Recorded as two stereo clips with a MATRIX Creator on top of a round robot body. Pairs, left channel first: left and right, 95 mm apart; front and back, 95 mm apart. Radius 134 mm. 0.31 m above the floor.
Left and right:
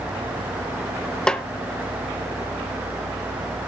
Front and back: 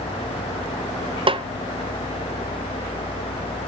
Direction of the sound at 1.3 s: 170° left.